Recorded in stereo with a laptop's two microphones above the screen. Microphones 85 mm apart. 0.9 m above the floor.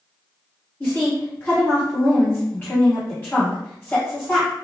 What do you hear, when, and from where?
0.8 s a woman speaking: 25° left (ahead or behind), 1.4 m